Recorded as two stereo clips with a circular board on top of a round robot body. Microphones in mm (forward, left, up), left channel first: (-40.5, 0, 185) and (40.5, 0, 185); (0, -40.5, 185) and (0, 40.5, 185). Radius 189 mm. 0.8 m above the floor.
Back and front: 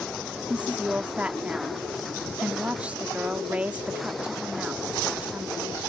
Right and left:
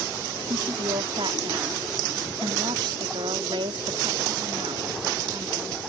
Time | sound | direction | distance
0.5 | a woman speaking | 75° left | ?